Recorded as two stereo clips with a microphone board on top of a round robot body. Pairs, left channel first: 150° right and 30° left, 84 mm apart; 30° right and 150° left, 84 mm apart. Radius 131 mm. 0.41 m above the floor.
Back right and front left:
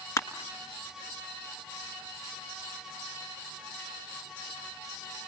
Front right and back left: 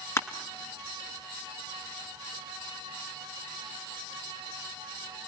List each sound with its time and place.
0.2 s crushing: 90° right, 1.2 m